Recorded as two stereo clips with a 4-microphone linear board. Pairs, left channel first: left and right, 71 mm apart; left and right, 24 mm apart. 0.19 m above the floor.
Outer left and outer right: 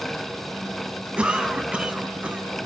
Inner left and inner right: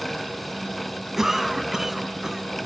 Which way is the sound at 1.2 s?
15° right (ahead or behind).